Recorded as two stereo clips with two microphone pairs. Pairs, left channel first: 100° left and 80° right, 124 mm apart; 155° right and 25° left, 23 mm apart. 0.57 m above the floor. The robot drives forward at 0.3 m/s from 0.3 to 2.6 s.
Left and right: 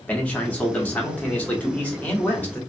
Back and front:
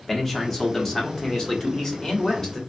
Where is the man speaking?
165° left, 1.1 m; by 2.6 s 175° left, 1.5 m.